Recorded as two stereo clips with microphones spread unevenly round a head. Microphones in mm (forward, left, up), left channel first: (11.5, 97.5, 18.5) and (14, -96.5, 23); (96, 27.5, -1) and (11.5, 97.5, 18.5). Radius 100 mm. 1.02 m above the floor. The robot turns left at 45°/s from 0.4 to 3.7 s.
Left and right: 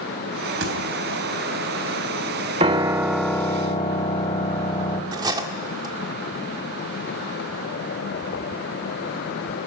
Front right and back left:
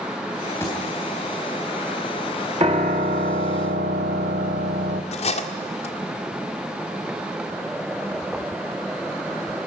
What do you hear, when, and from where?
0.6 s a thud: 120° right, 3.5 m; by 0.8 s 125° right, 3.5 m
2.6 s a piano: 155° right, 1.1 m; by 5.0 s 160° left, 1.1 m
5.1 s cutlery clinking: 20° right, 1.8 m